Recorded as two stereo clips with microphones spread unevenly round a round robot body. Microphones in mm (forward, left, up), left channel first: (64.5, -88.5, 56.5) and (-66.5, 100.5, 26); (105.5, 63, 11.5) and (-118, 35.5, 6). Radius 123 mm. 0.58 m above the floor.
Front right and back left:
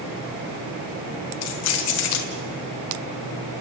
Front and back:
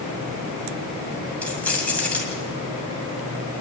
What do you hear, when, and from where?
1.4 s keys jangling: 80° right, 2.5 m